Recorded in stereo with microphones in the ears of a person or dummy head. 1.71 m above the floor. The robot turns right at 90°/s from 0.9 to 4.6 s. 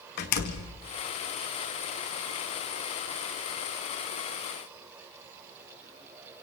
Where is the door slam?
50° left (ahead or behind), 2.0 m.